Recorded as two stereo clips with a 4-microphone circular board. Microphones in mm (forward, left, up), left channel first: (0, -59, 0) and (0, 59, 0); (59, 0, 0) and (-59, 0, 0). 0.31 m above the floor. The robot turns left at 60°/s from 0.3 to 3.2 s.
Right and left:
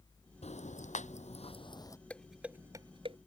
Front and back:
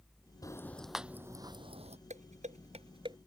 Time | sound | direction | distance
0.4 | ticking | 60° right | ?
2.1 | dishes clattering | 170° right | ?